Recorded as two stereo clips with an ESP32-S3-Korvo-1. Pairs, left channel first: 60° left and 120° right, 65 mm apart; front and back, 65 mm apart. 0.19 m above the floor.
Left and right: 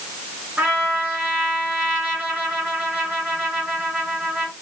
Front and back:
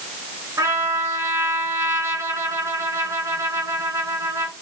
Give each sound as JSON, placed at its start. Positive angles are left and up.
{"t": 0.6, "sound": "a trumpet", "azimuth_deg": -175, "distance_m": 2.5}